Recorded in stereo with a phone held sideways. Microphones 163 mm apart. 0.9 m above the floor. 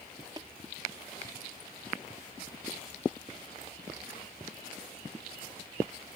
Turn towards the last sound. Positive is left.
turn(degrees=-25)  # may be behind; listen again after turning